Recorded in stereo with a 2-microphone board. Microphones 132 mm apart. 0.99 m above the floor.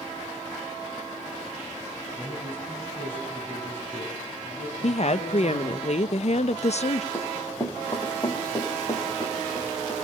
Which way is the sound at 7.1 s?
30° left (ahead or behind).